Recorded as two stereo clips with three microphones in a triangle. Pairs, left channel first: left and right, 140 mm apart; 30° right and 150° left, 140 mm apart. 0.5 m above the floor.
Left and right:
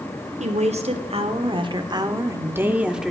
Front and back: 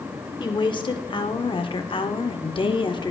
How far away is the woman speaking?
About 1.8 m.